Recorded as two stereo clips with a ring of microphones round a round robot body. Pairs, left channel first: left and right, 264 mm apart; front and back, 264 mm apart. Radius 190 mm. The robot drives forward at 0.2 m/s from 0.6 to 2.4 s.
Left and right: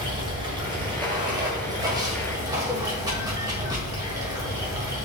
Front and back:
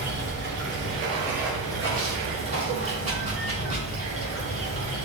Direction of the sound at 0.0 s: 160° right.